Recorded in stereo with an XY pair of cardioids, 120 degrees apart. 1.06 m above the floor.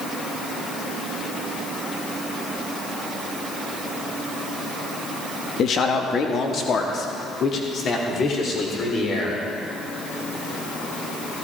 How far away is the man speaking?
About 1.7 m.